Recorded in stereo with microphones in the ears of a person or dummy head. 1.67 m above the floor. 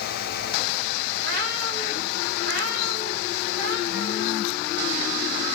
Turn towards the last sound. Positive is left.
turn(degrees=-50)  # may be behind; listen again after turning